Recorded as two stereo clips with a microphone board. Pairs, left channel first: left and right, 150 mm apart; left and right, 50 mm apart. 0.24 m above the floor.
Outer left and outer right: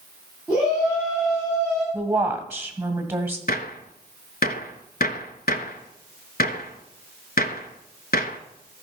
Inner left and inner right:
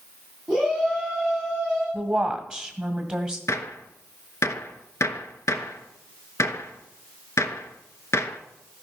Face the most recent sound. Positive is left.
turn(degrees=80)